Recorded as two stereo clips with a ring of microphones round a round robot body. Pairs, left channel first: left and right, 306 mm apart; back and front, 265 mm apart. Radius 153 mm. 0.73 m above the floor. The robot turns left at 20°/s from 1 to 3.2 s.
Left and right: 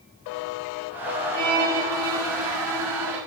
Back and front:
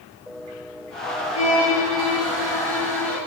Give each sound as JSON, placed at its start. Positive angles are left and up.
{"t": 1.3, "sound": "a violin", "azimuth_deg": -75, "distance_m": 2.5}